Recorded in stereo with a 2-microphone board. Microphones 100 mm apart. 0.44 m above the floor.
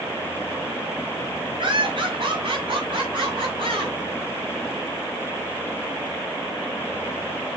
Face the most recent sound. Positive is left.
turn(degrees=-60)  # may be behind; listen again after turning